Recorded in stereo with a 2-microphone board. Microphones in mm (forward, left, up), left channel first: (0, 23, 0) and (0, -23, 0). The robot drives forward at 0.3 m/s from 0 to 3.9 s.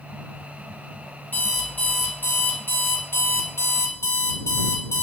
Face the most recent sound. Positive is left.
turn(degrees=85)